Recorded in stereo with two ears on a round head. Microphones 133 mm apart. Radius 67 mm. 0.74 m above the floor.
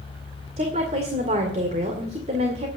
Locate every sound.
0.6 s a woman speaking: 45° right (ahead or behind), 2 m